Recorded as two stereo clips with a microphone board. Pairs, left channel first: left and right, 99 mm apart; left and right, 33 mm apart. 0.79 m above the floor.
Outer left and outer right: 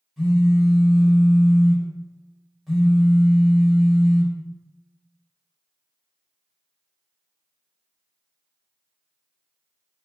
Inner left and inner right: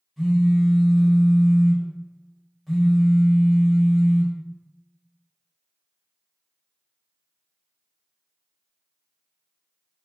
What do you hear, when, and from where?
0.2 s a phone buzzing: centre (ahead or behind), 0.9 m